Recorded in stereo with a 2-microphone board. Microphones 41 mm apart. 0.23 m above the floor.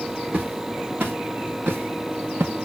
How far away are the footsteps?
About 3 m.